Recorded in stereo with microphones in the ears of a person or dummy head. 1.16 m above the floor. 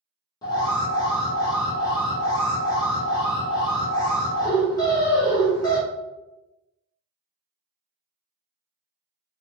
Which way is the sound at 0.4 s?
20° left (ahead or behind).